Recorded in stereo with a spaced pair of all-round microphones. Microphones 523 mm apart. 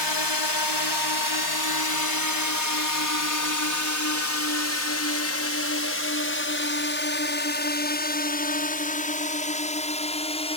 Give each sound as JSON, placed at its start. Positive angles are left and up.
{"t": 0.0, "sound": "a drone", "side_deg": 50}